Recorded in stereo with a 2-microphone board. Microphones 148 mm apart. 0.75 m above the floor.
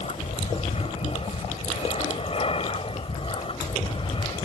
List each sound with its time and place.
0.0 s an aircraft: 45° left (ahead or behind); by 4.4 s 35° left (ahead or behind)